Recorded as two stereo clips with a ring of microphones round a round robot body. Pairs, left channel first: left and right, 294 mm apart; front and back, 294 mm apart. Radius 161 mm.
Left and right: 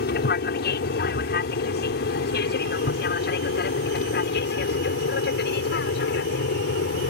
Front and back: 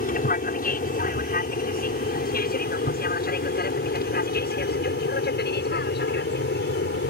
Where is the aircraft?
45° left.